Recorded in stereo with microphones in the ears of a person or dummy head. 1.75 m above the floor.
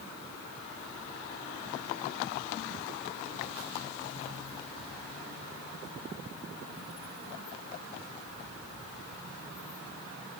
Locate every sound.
Only background noise.